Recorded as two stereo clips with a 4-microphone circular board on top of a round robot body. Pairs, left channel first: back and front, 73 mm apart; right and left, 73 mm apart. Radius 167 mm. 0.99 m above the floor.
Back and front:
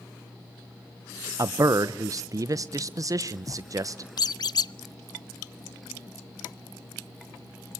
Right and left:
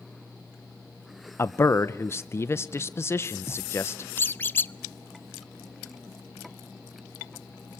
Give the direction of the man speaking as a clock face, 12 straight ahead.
1 o'clock.